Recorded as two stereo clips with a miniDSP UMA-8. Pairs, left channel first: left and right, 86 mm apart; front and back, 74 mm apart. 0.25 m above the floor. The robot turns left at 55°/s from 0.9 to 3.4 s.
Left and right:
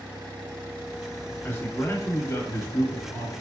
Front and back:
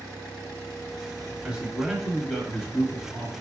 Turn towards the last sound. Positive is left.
turn(degrees=15)